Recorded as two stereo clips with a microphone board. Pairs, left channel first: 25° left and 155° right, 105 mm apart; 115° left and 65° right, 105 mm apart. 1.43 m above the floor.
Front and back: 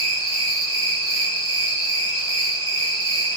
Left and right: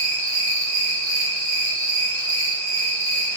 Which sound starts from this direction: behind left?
An insect, at 0.0 s.